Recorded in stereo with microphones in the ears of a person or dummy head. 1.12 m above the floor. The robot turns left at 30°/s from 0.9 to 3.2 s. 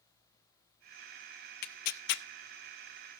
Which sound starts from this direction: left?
Tearing paper, at 1.6 s.